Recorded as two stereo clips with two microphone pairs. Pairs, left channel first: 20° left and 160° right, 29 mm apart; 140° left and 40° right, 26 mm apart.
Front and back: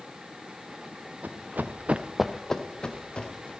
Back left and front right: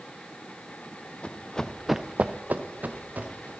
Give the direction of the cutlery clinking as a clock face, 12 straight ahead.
I don't hear cutlery clinking.